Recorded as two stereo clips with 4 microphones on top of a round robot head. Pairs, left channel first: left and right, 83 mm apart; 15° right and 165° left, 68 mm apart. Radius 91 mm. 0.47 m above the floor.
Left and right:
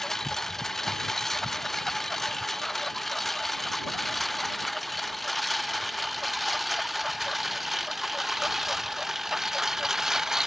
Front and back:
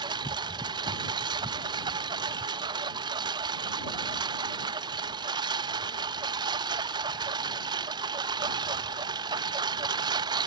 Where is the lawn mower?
175° left; by 10.5 s 175° right.